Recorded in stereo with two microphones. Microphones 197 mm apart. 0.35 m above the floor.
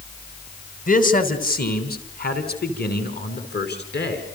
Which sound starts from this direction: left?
A man speaking, at 0.9 s.